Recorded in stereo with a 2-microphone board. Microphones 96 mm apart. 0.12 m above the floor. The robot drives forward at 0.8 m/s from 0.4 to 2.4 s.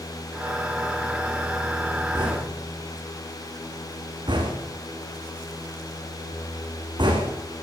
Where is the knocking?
50° right (ahead or behind), 7 m; by 7.3 s 55° right (ahead or behind), 7 m.